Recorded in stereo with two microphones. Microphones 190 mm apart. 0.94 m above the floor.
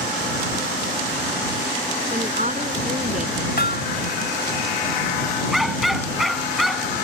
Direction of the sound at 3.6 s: 55° left (ahead or behind).